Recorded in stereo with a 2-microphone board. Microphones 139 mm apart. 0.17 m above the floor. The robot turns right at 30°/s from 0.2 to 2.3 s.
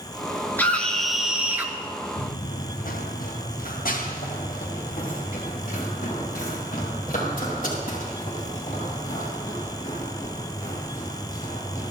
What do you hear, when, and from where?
0.6 s a scream: 165° left, 2.5 m; by 1.7 s 160° right, 2.5 m
2.2 s running footsteps: 60° left (ahead or behind), 1.1 m; by 11.9 s 75° left (ahead or behind), 11.5 m